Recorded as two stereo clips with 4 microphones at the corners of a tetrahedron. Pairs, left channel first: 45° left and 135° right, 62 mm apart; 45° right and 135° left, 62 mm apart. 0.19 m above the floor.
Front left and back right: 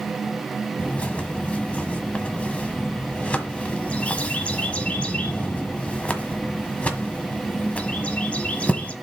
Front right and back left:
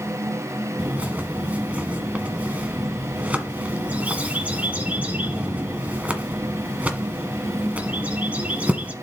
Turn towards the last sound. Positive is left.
turn(degrees=90)